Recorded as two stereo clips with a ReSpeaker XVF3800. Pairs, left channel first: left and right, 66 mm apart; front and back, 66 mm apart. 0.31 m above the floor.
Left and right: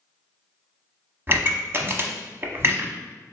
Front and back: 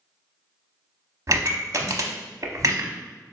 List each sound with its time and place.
1.3 s a pop: 140° right, 0.6 m